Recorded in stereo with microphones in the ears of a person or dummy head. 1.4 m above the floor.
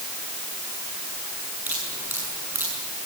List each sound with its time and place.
1.7 s dripping: 10° right (ahead or behind), 6.5 m